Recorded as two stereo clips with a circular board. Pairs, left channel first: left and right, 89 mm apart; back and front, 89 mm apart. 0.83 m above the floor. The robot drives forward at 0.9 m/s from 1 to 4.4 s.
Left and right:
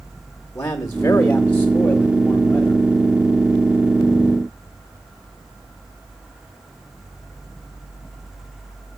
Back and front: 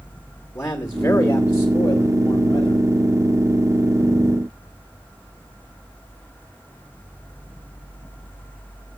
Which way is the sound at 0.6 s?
140° left.